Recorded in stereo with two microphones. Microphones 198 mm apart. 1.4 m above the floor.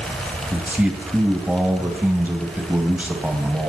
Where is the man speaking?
10° right (ahead or behind), 2.5 m.